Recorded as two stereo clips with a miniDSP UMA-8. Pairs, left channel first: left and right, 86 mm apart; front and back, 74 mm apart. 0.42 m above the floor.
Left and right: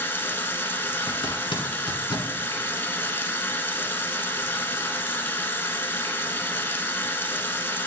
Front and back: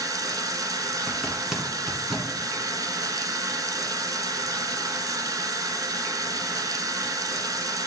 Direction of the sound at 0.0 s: 150° left.